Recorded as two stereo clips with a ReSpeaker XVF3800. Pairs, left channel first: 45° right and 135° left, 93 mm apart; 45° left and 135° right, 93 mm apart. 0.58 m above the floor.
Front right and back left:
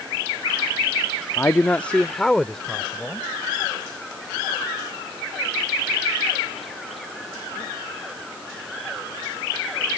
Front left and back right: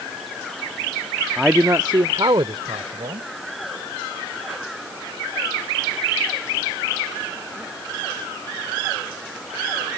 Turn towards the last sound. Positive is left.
turn(degrees=-130)